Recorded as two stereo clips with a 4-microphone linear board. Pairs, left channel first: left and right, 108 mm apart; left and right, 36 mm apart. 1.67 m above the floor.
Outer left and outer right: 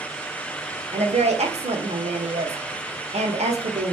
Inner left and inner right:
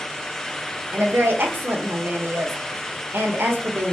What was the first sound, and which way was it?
A woman speaking, 85° right.